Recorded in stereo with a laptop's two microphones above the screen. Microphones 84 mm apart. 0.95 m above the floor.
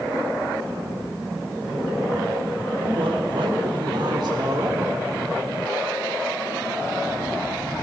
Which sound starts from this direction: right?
A man speaking, at 2.8 s.